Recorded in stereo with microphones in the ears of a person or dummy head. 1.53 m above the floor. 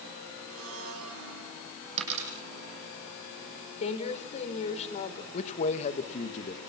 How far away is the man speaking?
About 1.7 m.